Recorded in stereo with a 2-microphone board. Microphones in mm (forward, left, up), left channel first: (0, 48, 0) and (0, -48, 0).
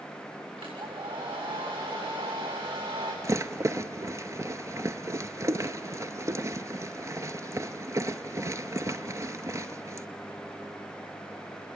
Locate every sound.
0.6 s a hair dryer: 75° right (ahead or behind), 8 m
3.2 s a rattle: 35° right (ahead or behind), 0.8 m